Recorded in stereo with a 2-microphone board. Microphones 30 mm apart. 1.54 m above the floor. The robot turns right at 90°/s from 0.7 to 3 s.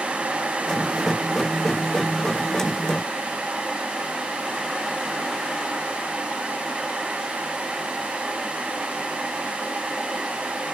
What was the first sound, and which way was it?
Only background noise.